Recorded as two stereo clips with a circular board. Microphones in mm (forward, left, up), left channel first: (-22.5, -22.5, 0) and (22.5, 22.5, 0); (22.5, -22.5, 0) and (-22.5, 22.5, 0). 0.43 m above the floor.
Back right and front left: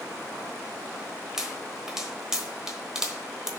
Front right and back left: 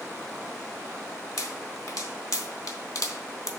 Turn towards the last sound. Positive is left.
turn(degrees=-35)